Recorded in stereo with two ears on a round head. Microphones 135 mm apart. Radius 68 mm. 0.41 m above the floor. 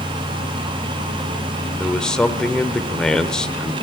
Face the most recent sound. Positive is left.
turn(degrees=5)  # may be behind; listen again after turning